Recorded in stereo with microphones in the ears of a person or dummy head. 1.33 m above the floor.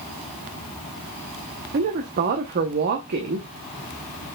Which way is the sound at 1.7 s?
45° right (ahead or behind).